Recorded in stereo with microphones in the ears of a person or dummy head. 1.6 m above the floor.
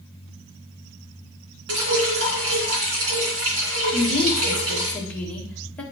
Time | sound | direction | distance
1.7 | dripping | 75° right (ahead or behind) | 3 m
3.9 | a woman speaking | 10° left (ahead or behind) | 2.0 m